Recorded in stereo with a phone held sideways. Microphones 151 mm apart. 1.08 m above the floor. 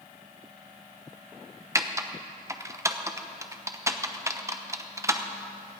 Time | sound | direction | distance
1.8 | typing on a keyboard | 20° right (ahead or behind) | 0.8 m